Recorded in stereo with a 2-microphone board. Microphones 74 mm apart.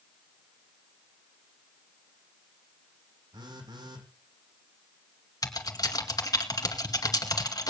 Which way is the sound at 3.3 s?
80° right.